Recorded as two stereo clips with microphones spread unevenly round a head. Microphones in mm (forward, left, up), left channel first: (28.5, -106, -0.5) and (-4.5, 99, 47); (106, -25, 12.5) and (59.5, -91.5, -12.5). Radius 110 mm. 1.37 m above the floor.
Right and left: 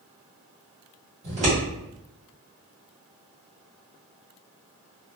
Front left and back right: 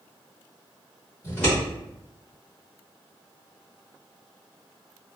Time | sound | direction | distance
1.2 | scissors | 90° left | 1.3 m